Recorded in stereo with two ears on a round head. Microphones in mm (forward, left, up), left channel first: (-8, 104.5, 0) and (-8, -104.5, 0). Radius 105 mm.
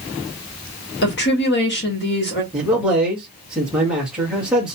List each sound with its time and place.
1.0 s a woman speaking: 50° left (ahead or behind), 1.3 m
2.5 s a man speaking: 5° right (ahead or behind), 1.3 m